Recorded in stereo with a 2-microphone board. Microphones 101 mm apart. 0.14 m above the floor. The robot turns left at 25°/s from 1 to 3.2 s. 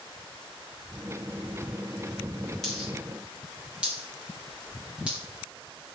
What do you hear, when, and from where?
2.6 s a dropped coin: 5° left (ahead or behind), 8 m; by 5.2 s 10° right (ahead or behind), 8 m